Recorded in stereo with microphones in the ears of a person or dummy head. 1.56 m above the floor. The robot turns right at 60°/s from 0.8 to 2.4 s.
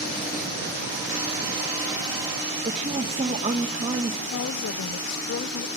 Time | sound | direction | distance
2.6 | a woman speaking | 35° right (ahead or behind) | 1.7 m
4.3 | a woman speaking | 65° left (ahead or behind) | 0.7 m